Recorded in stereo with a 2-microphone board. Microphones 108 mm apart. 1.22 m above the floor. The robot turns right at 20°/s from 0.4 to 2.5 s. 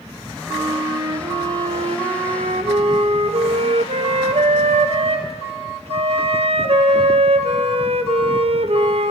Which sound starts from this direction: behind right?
A flute, at 0.5 s.